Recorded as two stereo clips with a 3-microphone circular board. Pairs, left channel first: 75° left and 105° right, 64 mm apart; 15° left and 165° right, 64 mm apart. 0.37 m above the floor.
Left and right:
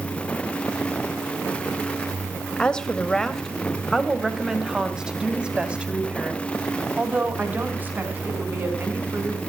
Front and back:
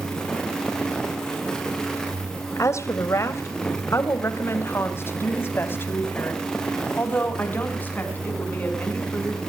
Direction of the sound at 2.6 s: 5° left.